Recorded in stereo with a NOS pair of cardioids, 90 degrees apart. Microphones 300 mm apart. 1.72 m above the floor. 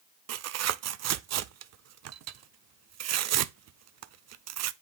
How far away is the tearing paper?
About 0.6 m.